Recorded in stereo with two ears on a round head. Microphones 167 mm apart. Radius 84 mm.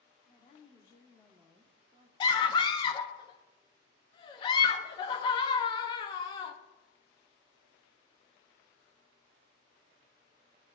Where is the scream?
25° left (ahead or behind), 0.6 m.